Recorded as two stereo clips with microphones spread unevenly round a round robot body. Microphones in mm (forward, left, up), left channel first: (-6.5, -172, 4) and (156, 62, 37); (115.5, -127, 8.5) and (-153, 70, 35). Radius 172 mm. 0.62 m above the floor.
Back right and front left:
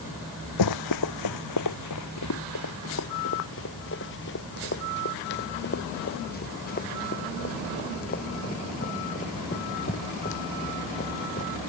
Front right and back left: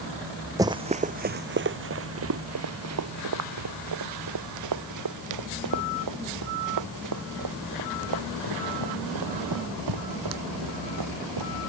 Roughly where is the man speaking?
I don't hear a man speaking.